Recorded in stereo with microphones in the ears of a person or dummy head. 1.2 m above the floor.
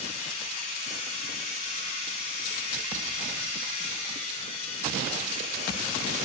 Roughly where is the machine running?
Left.